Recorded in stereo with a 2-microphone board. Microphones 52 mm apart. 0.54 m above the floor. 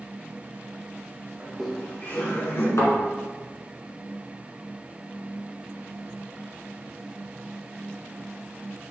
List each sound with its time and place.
1.4 s laughter: 15° right (ahead or behind), 0.6 m; by 2.7 s 45° left (ahead or behind), 1.6 m
2.8 s a thud: 75° left (ahead or behind), 1.7 m